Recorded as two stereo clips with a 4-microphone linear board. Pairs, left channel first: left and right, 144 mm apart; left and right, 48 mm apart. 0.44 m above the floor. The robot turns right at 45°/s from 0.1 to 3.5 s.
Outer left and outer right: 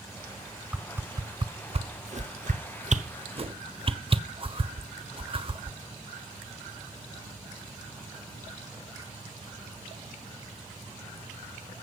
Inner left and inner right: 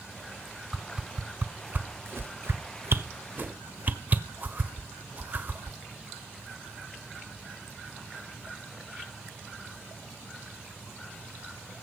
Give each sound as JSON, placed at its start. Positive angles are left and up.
{"t": 0.7, "sound": "a whoosh", "side_deg": -5, "distance_m": 1.1}